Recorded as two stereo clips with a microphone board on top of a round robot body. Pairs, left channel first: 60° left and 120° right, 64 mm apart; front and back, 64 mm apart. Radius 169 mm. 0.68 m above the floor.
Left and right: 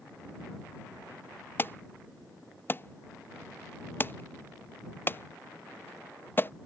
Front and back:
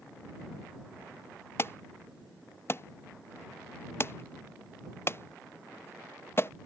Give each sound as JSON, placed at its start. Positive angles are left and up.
{"t": 1.6, "sound": "an alarm", "azimuth_deg": 25}